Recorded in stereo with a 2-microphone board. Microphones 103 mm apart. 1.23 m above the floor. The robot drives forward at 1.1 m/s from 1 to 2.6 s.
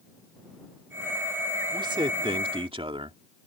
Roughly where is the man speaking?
Right.